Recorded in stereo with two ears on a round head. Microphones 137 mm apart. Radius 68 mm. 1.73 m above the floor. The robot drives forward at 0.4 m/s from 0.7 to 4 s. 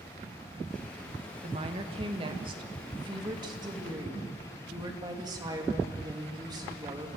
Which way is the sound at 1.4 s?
40° right (ahead or behind).